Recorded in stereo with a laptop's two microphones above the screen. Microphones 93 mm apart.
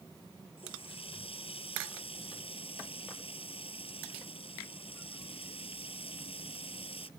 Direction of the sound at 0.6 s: 80° left.